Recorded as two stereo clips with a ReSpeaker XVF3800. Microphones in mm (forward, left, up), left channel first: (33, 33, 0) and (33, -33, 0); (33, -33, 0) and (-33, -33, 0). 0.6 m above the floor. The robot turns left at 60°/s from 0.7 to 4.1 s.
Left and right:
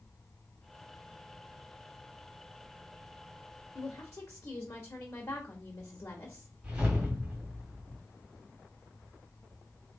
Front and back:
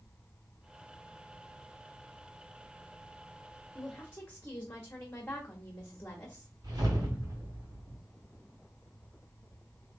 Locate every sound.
3.8 s a woman speaking: 80° left, 1.1 m; by 6.5 s 60° left, 1.1 m
6.6 s a whoosh: 165° right, 2.5 m